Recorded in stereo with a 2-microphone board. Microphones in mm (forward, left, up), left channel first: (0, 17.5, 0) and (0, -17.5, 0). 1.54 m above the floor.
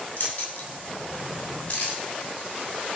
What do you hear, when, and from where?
0.2 s keys jangling: 40° left (ahead or behind), 8 m; by 2.0 s 35° left (ahead or behind), 6.5 m